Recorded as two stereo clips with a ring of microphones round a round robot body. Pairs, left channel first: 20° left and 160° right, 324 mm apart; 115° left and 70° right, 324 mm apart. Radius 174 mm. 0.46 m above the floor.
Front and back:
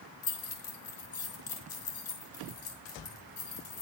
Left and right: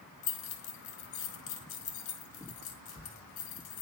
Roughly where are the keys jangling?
Ahead left.